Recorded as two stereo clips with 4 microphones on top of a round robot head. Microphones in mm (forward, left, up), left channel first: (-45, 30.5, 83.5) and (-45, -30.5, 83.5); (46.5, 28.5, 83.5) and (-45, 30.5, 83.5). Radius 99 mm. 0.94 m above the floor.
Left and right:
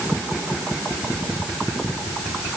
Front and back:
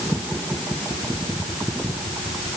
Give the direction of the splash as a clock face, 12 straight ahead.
I don't hear a splash.